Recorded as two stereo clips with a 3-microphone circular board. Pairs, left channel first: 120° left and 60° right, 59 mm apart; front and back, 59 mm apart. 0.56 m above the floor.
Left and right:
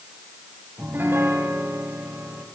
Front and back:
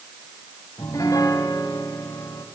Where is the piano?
10° right, 3 m.